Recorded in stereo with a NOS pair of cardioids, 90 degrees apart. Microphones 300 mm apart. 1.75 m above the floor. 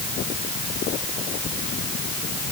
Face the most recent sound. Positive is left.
No sound to turn to.